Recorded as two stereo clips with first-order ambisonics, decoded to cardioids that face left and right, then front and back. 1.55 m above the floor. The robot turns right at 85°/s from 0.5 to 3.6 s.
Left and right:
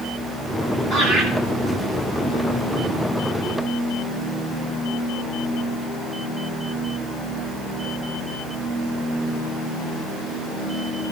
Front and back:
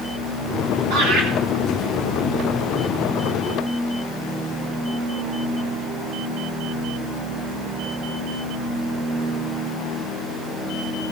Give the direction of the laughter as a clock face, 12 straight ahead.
6 o'clock.